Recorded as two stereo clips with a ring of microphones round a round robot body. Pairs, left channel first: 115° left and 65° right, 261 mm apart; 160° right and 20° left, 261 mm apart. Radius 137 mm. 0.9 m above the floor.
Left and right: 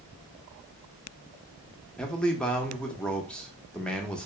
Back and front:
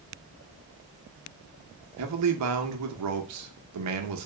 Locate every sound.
2.0 s a man speaking: 25° left, 0.9 m